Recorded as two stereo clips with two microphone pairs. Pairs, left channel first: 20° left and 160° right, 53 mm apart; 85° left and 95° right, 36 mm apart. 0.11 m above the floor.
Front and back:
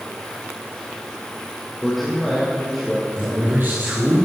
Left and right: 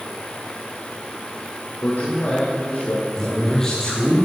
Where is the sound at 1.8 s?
105° left, 4.5 m.